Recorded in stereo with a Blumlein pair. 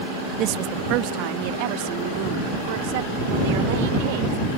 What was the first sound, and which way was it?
A woman speaking, 35° right.